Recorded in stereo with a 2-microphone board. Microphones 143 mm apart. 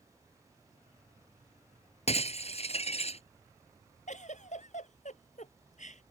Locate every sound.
2.1 s breaking glass: 50° left (ahead or behind)
4.1 s a giggle: 60° left (ahead or behind)